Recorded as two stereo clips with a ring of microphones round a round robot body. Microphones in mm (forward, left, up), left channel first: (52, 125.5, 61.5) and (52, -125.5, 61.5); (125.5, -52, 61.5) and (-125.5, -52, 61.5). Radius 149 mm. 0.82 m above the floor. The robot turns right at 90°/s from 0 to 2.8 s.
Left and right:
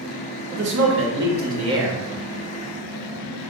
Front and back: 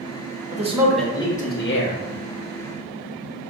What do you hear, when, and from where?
0.5 s a man speaking: 130° right, 1.3 m; by 2.0 s straight ahead, 1.3 m